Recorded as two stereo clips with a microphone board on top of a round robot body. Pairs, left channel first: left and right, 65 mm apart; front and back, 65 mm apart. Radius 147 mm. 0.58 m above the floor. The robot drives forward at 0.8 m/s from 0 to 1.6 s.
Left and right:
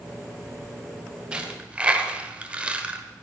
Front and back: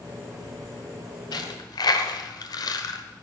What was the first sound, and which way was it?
A dropped coin, 15° right.